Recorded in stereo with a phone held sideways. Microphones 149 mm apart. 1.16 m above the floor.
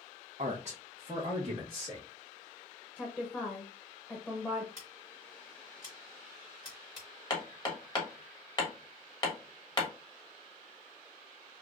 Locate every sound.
0.4 s a man speaking: 55° right (ahead or behind), 0.6 m; by 2.1 s 30° right (ahead or behind), 1.4 m
3.0 s a woman speaking: 10° left (ahead or behind), 0.8 m
4.8 s scissors: 45° left (ahead or behind), 3 m
7.3 s hammering: 30° left (ahead or behind), 1.2 m